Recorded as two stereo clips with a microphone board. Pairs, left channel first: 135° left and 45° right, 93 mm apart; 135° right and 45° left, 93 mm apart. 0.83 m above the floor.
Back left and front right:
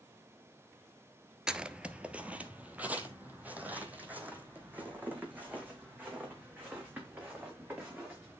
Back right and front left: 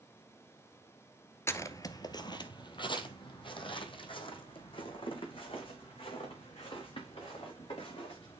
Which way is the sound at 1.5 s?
115° right.